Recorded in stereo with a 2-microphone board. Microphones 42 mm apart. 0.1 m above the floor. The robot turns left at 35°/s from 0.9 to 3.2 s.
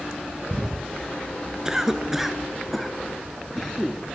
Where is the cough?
15° right (ahead or behind), 1.8 m; by 4.2 s 5° left (ahead or behind), 1.8 m.